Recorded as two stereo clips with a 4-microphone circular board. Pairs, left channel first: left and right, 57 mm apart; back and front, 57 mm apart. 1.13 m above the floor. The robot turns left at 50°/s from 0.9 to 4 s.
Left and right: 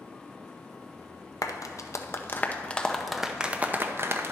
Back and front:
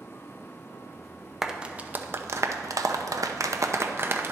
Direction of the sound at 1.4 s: 85° left.